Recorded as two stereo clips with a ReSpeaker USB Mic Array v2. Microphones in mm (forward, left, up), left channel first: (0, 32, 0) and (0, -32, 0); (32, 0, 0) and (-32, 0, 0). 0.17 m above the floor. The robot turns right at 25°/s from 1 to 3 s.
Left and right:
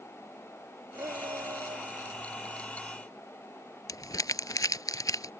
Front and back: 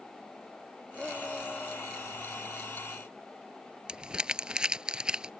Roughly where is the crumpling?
Left.